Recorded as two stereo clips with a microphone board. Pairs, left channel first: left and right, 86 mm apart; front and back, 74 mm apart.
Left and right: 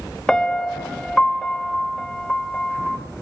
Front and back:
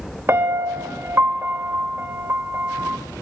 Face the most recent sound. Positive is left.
turn(degrees=165)